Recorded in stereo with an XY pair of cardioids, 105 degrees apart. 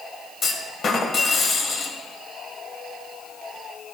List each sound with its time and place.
0.4 s a clunk: 50° left, 1.0 m